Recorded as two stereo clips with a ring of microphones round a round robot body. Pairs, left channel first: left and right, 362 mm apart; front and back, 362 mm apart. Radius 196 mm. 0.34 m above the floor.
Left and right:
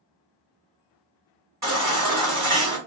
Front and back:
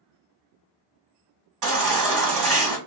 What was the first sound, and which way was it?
A baby crying, 170° right.